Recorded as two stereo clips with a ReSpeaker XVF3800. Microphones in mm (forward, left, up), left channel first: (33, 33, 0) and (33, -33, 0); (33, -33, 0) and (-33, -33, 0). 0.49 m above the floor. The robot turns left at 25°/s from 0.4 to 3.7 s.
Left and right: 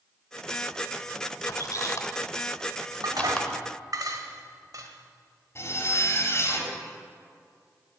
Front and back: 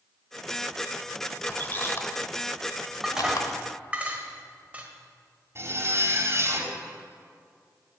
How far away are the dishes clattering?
About 1.5 m.